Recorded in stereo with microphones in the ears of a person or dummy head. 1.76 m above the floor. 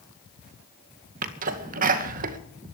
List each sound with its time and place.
1.2 s a sneeze: 45° right (ahead or behind), 2 m